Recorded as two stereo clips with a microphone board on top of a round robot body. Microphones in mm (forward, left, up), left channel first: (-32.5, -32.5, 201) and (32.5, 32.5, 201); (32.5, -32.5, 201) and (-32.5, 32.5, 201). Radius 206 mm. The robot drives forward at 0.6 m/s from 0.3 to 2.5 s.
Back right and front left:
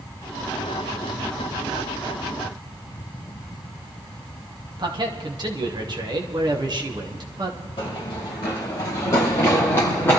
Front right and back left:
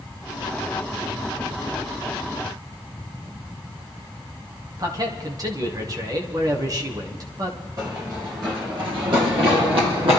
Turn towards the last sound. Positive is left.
turn(degrees=155)